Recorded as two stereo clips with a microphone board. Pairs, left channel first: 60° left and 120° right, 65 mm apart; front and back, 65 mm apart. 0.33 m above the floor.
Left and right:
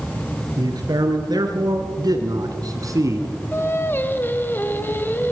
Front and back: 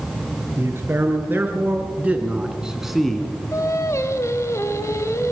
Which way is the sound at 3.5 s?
15° left.